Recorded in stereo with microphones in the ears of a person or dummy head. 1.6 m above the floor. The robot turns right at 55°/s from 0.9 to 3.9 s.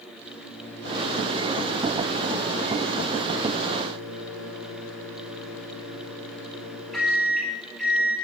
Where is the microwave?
15° left, 4 m; by 8.1 s straight behind, 4 m.